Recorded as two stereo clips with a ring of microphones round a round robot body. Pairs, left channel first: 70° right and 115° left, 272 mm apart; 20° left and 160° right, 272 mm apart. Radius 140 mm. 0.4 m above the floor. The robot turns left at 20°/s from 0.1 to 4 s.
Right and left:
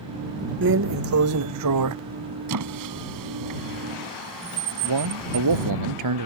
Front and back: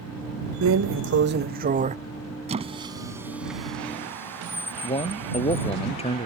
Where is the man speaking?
90° left.